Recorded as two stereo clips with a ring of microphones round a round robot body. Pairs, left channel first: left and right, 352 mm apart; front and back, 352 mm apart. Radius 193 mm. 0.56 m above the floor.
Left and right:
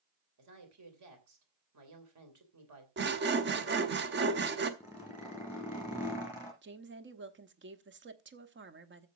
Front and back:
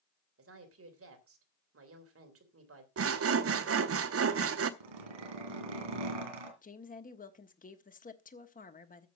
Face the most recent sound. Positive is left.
turn(degrees=-55)